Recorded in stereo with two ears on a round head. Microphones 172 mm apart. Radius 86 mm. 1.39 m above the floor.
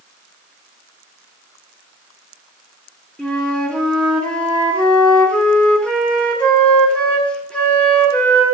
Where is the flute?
5° left (ahead or behind), 1.5 m.